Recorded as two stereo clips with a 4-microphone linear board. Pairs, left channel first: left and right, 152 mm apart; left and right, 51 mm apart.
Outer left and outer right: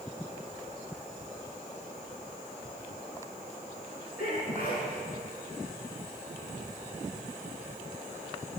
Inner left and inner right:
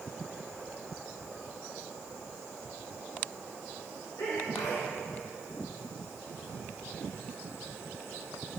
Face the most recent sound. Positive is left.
turn(degrees=75)  # may be behind; listen again after turning